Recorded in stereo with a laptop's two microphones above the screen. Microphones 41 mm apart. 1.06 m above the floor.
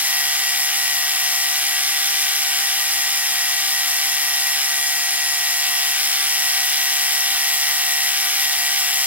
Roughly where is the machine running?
Right.